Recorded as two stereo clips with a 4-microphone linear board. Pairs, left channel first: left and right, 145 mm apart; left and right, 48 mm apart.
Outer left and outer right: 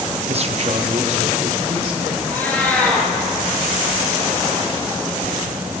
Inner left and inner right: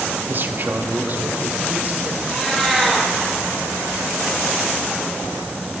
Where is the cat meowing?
10° left (ahead or behind), 3 m.